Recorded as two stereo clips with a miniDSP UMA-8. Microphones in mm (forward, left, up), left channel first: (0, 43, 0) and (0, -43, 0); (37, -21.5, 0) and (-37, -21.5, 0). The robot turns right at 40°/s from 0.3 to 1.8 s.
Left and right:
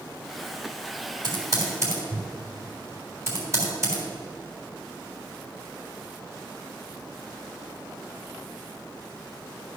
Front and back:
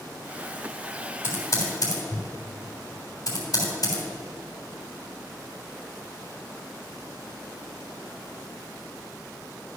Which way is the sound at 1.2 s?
60° right.